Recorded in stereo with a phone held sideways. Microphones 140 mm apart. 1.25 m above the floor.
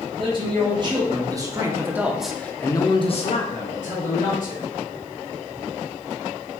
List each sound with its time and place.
0.2 s a man speaking: 40° right (ahead or behind), 2.5 m; by 4.6 s 65° left (ahead or behind), 1.8 m